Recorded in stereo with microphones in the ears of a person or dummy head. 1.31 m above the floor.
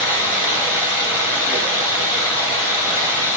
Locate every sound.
0.0 s running water: 10° right (ahead or behind), 1.6 m